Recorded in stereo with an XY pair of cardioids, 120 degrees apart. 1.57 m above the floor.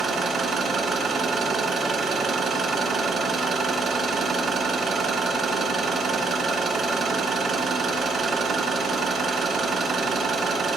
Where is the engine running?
45° right, 1.5 m.